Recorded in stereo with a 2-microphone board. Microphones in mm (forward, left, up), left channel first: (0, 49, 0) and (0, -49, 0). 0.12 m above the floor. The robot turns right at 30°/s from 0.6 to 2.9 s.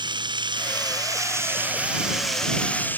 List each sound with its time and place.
0.0 s running water: 50° right; by 3.0 s 20° left